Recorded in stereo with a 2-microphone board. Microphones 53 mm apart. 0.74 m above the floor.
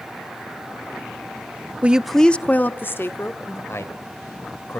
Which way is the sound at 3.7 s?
60° left (ahead or behind).